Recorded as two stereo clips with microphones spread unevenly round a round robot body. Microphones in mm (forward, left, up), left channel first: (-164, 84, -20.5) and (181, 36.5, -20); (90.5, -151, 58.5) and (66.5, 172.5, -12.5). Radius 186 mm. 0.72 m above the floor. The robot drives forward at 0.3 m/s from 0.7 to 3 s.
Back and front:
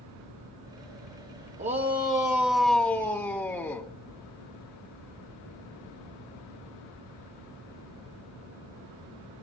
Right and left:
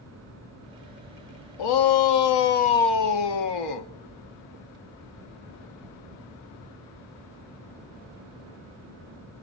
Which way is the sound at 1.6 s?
80° right.